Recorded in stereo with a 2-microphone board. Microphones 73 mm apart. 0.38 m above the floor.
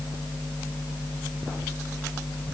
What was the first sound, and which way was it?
Only background noise.